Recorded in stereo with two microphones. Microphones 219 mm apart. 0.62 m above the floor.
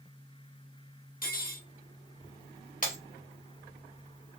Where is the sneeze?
No sneeze in this recording.